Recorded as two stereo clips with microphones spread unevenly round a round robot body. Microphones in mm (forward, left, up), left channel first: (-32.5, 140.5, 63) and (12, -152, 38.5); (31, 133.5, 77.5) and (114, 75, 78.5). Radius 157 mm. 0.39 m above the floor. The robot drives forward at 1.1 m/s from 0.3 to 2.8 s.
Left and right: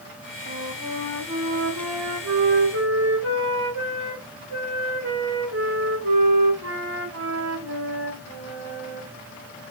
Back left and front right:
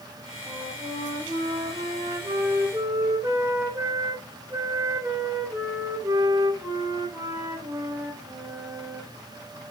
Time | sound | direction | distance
0.5 | a flute | 45° right | 3 m